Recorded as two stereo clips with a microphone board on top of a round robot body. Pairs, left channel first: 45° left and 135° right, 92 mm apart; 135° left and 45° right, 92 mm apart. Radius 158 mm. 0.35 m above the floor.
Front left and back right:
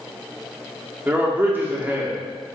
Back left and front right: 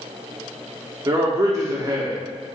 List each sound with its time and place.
1.1 s a man speaking: 75° right, 1.0 m